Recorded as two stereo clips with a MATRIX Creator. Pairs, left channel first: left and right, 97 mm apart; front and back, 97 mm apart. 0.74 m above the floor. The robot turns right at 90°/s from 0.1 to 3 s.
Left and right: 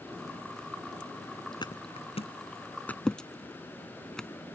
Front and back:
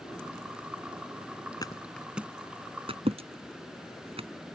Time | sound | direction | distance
1.6 | a thud | 45° left | ?